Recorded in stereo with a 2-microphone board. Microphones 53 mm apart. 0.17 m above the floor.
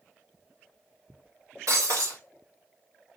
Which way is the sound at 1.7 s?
70° right (ahead or behind).